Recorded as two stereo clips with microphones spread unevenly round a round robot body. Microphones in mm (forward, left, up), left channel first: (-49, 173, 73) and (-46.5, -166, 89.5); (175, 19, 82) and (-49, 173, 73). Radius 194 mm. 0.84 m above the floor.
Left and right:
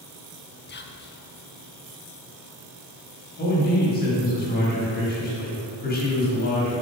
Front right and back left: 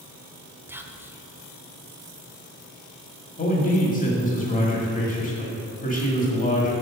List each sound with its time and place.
0.7 s whispering: 70° left, 0.9 m
3.4 s a man speaking: 30° left, 2 m